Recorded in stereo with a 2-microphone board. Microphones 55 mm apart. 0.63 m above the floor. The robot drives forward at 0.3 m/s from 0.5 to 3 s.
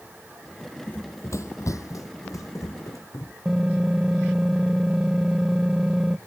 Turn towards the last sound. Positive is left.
turn(degrees=-10)  # may be behind; listen again after turning